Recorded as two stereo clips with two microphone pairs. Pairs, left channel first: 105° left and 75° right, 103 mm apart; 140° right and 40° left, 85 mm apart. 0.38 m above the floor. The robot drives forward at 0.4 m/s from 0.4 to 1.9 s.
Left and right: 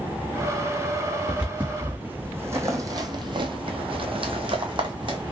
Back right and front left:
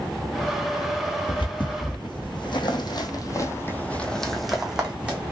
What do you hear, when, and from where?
1.3 s footsteps: 150° right, 1.1 m; by 5.3 s 35° right, 1.1 m